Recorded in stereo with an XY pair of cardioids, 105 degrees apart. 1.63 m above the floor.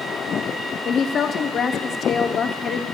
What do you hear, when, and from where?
0.8 s a woman speaking: 50° left, 0.9 m